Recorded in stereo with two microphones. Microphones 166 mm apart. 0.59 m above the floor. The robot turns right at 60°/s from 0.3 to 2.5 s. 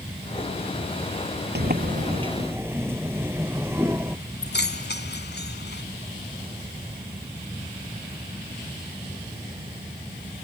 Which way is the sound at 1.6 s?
70° right.